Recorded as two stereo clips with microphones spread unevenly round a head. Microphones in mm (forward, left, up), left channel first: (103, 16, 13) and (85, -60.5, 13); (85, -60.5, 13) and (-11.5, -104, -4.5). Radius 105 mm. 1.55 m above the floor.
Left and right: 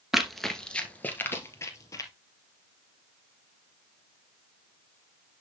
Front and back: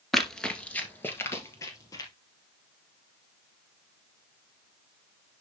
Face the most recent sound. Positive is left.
turn(degrees=55)